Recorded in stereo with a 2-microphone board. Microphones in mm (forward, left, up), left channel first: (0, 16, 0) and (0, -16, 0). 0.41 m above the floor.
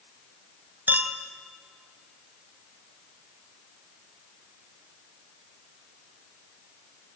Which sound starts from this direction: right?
A clink, at 0.9 s.